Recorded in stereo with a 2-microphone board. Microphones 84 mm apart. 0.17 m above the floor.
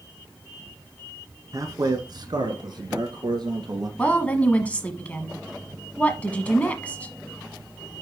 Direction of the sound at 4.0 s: 15° left (ahead or behind).